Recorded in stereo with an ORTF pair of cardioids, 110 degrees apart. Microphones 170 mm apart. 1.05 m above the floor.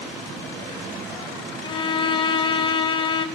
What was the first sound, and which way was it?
A violin, 30° left.